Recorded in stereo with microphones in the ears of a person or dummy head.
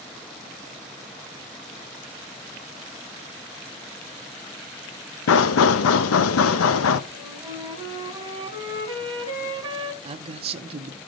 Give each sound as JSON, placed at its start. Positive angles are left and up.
{"t": 5.3, "sound": "knocking", "side_deg": 80, "distance_m": 0.8}
{"t": 7.1, "sound": "a flute", "side_deg": -25, "distance_m": 2.0}
{"t": 10.0, "sound": "a man speaking", "side_deg": -35, "distance_m": 0.8}